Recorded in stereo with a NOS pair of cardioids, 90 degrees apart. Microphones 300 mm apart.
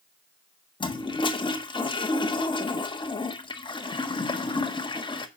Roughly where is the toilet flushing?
Ahead.